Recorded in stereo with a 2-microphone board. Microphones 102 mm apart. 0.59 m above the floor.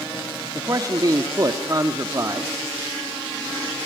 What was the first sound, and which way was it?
A man speaking, 35° right (ahead or behind).